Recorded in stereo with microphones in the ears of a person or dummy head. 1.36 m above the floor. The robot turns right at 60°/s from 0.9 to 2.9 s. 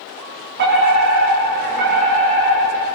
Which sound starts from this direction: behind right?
A fire alarm, at 0.6 s.